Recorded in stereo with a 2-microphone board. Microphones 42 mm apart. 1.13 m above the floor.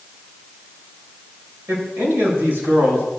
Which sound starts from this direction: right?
A man speaking, at 1.7 s.